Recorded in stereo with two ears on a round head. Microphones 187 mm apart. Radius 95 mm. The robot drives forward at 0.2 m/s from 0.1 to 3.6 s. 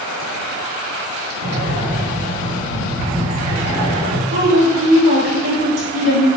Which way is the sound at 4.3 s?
70° right (ahead or behind).